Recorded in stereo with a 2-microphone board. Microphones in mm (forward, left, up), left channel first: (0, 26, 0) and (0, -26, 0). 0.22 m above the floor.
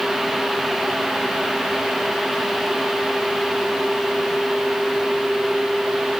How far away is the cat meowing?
No cat meowing in this recording.